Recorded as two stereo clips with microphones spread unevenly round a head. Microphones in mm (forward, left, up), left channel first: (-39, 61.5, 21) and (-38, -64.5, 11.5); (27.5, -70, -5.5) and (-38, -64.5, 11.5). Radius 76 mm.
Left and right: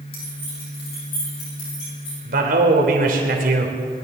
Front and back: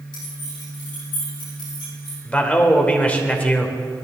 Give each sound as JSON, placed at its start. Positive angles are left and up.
{"t": 0.1, "sound": "keys jangling", "azimuth_deg": 35, "distance_m": 5.5}
{"t": 2.2, "sound": "a man speaking", "azimuth_deg": -75, "distance_m": 3.0}